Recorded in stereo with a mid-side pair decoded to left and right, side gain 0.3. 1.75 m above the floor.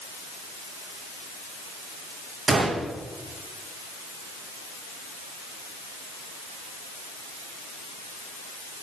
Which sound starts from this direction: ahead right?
A gunshot, at 2.5 s.